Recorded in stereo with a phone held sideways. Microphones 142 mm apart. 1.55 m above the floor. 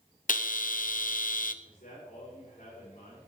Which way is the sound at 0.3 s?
70° left (ahead or behind).